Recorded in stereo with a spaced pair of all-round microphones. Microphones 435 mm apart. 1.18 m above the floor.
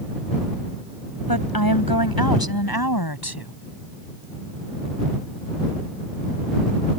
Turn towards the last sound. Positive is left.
turn(degrees=60)  # may be behind; listen again after turning